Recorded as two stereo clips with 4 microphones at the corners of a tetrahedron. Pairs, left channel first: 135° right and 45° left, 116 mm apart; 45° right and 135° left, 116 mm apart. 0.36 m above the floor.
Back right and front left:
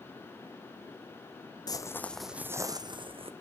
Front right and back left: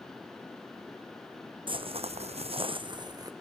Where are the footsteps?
175° left, 0.8 m; by 3.3 s 80° left, 1.2 m.